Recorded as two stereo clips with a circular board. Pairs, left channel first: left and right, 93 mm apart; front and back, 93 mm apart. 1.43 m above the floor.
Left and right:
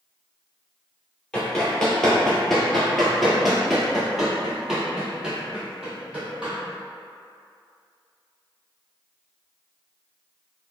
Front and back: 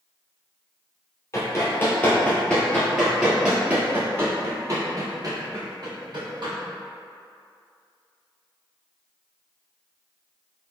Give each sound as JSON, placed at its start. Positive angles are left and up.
{"t": 1.3, "sound": "running footsteps", "azimuth_deg": 15, "distance_m": 1.6}